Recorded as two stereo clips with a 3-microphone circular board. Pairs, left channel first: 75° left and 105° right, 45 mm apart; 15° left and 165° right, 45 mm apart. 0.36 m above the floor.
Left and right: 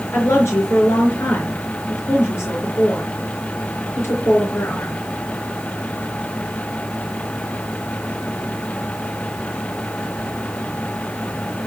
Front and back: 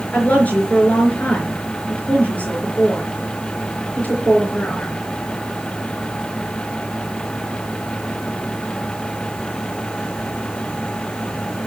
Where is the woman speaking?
70° left, 4.5 m.